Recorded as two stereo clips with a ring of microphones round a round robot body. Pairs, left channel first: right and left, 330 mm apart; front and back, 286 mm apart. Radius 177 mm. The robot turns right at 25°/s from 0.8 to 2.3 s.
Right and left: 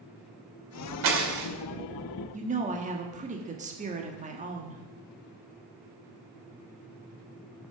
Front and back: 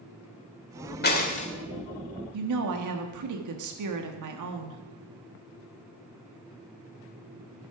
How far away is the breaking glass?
About 2.0 m.